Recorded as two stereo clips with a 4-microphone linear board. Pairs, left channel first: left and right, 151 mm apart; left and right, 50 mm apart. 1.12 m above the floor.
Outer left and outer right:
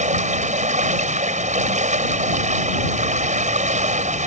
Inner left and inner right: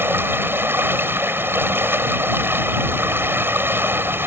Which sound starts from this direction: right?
Running water, at 0.0 s.